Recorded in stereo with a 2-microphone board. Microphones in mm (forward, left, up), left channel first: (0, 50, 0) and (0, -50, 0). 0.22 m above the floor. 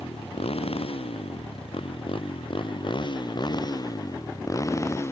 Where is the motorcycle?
80° left; by 5.1 s 25° left (ahead or behind).